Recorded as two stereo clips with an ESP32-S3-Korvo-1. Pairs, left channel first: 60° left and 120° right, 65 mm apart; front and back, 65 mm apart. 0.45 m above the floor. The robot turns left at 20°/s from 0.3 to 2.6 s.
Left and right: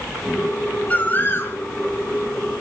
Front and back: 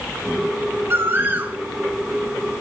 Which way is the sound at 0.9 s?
125° left.